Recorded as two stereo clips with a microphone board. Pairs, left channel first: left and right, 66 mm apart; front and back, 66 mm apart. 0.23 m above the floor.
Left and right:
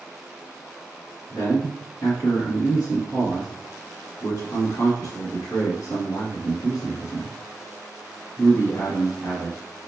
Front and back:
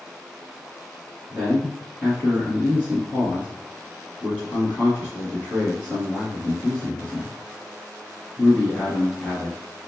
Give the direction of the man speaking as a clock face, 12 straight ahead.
10 o'clock.